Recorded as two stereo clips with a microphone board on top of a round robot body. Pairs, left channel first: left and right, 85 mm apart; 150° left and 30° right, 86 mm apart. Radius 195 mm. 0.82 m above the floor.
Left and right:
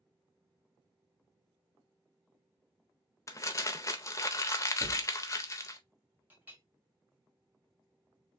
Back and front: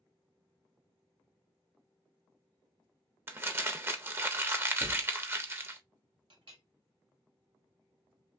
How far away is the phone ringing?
I don't hear a phone ringing.